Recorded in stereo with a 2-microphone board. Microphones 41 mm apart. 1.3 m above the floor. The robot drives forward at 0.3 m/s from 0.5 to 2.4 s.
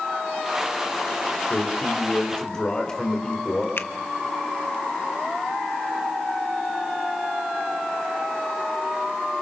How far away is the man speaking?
About 4.5 m.